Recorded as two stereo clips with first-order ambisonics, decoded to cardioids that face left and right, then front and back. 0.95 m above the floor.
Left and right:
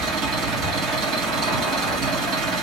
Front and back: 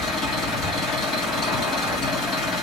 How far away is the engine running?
About 1.4 m.